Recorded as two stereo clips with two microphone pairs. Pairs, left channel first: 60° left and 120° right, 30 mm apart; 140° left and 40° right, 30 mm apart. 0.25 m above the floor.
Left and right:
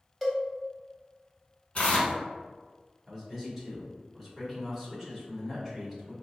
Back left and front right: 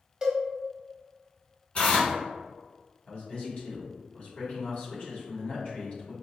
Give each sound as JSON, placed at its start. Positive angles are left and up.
{"t": 0.2, "sound": "a cowbell", "azimuth_deg": -40, "distance_m": 0.8}
{"t": 1.8, "sound": "tearing paper", "azimuth_deg": 105, "distance_m": 1.0}
{"t": 3.1, "sound": "a man speaking", "azimuth_deg": 155, "distance_m": 1.4}